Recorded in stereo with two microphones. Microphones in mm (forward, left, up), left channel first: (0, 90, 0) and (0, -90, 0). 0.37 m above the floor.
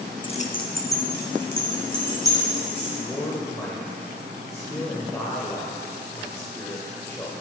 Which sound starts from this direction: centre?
A man speaking, at 3.0 s.